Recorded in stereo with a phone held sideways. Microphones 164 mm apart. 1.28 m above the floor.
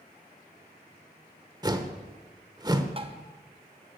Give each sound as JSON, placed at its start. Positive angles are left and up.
{"t": 1.6, "sound": "a whoosh", "side_deg": -25, "distance_m": 1.0}
{"t": 3.0, "sound": "tapping", "side_deg": -35, "distance_m": 1.0}